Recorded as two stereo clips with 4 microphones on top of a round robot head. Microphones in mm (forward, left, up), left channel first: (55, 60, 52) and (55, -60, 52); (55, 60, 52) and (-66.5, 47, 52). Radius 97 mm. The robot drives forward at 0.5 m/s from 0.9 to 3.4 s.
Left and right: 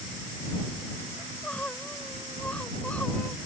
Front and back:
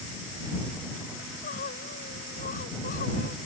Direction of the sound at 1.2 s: 10° left.